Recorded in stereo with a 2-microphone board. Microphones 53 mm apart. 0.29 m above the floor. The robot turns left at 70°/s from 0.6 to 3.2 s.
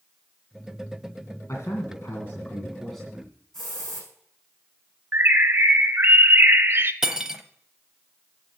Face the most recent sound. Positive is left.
turn(degrees=-10)  # may be behind; listen again after turning